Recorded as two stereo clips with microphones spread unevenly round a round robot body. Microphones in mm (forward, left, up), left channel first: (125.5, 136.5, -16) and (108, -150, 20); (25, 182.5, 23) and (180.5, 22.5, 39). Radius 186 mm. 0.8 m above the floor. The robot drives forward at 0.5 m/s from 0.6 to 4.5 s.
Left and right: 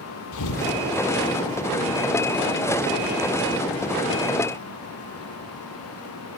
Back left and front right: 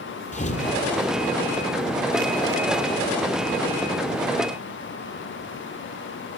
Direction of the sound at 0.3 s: 75° left.